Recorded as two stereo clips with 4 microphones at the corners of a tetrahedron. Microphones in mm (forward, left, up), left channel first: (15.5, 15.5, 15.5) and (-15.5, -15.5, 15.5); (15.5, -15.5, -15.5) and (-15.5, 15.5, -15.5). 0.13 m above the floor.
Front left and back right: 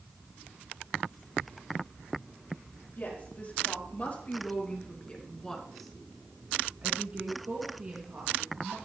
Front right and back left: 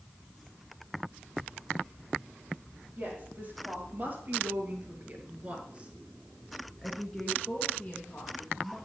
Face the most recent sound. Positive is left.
turn(degrees=-110)